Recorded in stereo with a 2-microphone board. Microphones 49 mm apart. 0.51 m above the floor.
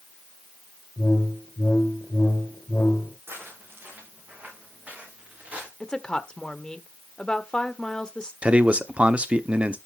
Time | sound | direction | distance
1.0 | a whoosh | 55° left (ahead or behind) | 2.5 m
3.3 | footsteps | 45° right (ahead or behind) | 6 m
5.8 | a woman speaking | 20° left (ahead or behind) | 1.1 m
8.4 | a man speaking | 25° right (ahead or behind) | 0.9 m